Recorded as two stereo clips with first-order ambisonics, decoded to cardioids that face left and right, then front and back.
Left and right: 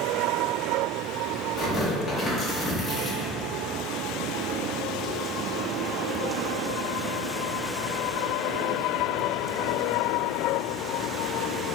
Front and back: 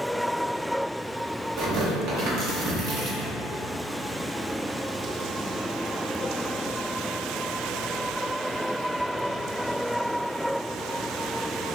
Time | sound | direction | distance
1.6 | tearing paper | 165° left | 0.8 m